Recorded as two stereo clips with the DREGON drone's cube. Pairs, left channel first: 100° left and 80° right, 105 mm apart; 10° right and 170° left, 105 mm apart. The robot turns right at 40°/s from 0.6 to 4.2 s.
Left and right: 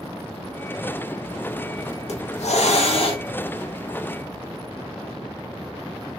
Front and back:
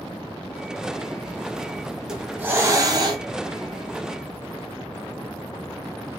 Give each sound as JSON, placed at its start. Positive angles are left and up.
{"t": 2.1, "sound": "a hiss", "azimuth_deg": 85, "distance_m": 0.6}